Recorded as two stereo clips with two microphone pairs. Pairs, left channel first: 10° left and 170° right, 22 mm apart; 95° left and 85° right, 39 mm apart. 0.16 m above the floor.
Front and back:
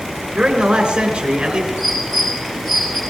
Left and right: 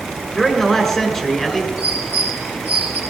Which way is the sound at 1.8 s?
60° right.